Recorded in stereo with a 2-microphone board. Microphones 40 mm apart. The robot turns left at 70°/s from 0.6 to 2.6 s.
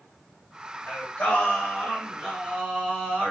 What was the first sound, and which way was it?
Singing, 85° left.